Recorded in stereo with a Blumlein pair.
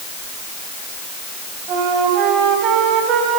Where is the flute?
35° right, 4.5 m.